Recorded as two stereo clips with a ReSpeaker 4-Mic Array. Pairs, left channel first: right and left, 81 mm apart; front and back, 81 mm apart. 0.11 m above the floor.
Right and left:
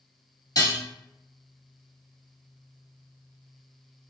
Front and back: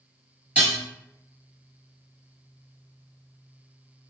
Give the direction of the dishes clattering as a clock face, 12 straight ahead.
4 o'clock.